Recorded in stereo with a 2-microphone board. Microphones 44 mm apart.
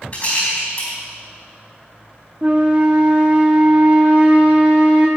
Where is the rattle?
35° left (ahead or behind), 4 m.